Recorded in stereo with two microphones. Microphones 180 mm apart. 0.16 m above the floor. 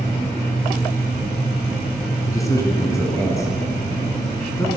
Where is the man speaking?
20° left (ahead or behind), 1.1 m.